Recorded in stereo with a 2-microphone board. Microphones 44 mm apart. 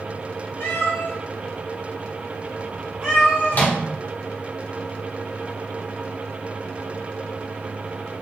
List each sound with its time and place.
0.6 s a cat meowing: 70° left (ahead or behind), 0.9 m; by 3.7 s 25° right (ahead or behind), 1.3 m
3.5 s a microwave: 45° left (ahead or behind), 0.6 m